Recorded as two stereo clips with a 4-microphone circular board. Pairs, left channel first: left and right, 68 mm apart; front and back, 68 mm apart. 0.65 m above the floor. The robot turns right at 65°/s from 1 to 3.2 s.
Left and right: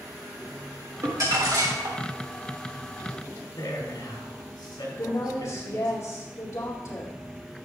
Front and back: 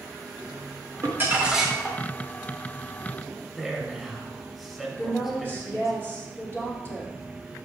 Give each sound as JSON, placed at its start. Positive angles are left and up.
{"t": 1.0, "sound": "crumpling", "azimuth_deg": -135, "distance_m": 1.9}
{"t": 3.5, "sound": "a man speaking", "azimuth_deg": 90, "distance_m": 3.0}
{"t": 5.0, "sound": "a woman speaking", "azimuth_deg": 55, "distance_m": 1.8}